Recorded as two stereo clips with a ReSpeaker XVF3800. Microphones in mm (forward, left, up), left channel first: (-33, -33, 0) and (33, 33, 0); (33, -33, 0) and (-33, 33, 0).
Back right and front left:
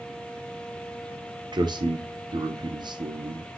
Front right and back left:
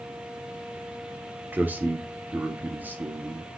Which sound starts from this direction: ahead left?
A man speaking, at 1.5 s.